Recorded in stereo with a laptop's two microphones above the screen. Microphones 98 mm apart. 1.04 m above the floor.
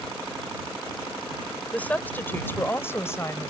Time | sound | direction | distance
1.7 | a woman speaking | 15° left (ahead or behind) | ?